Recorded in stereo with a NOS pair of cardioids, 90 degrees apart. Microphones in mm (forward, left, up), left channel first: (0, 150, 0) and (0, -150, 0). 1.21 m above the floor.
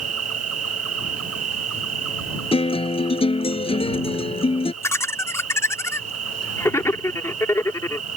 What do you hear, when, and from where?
0.0 s an insect: 55° right
2.5 s a guitar: 20° left
4.8 s laughter: 10° left